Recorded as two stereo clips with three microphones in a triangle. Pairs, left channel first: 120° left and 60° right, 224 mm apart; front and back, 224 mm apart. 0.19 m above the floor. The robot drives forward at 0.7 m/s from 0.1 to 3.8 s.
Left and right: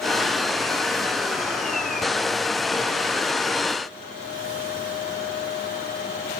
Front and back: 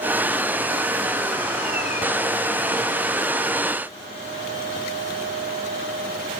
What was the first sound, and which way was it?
Only background noise.